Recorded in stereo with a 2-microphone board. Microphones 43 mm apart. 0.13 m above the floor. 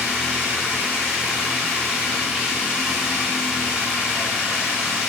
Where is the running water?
20° right (ahead or behind), 5 m.